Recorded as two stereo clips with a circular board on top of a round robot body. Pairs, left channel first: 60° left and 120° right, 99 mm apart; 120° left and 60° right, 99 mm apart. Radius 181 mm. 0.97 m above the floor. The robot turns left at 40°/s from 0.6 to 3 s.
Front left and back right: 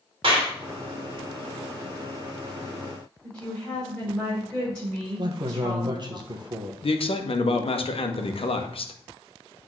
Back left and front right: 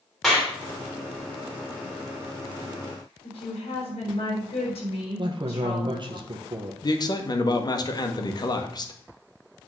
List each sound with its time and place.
0.2 s a clap: 150° right, 2.5 m
3.2 s a woman speaking: 140° left, 5.5 m
5.2 s a man speaking: 85° right, 1.2 m
6.8 s a man speaking: 75° left, 1.4 m